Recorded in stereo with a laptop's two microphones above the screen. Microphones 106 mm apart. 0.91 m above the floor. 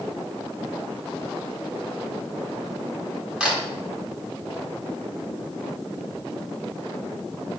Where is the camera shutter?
10° right (ahead or behind), 1.4 m.